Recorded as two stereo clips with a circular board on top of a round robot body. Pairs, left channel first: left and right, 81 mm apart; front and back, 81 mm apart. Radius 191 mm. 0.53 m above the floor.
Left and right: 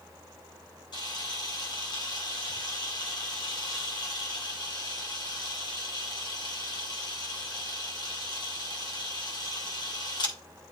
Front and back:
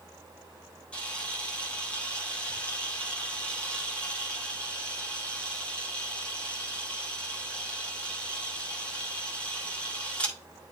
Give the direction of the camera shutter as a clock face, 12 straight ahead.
10 o'clock.